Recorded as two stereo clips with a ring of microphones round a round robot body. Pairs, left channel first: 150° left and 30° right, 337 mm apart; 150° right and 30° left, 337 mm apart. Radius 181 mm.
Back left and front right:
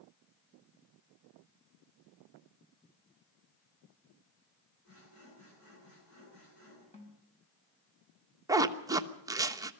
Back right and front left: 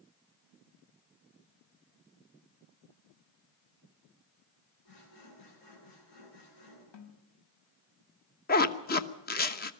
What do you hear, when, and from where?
4.8 s sawing: 160° right, 9.5 m
6.9 s a snare drum: 140° right, 3.5 m
8.5 s a zipper: 105° right, 1.1 m